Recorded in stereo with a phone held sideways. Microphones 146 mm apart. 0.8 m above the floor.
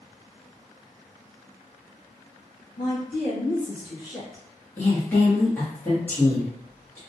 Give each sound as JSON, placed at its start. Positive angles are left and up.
{"t": 2.8, "sound": "a woman speaking", "side_deg": 65, "distance_m": 1.5}
{"t": 4.8, "sound": "a woman speaking", "side_deg": 10, "distance_m": 1.0}